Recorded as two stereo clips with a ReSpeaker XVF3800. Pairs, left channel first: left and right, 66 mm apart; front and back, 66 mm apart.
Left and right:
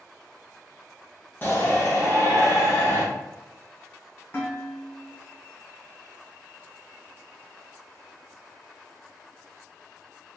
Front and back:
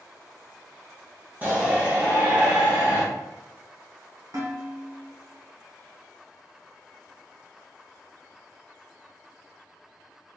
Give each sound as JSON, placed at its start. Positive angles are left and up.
{"t": 1.4, "sound": "a shout", "azimuth_deg": 130, "distance_m": 1.3}
{"t": 4.3, "sound": "dishes clattering", "azimuth_deg": 145, "distance_m": 1.6}